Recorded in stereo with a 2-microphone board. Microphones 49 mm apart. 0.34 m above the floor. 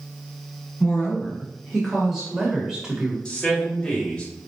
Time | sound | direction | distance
0.8 | a woman speaking | 5° left (ahead or behind) | 1.8 m
3.2 | a man speaking | 15° left (ahead or behind) | 1.6 m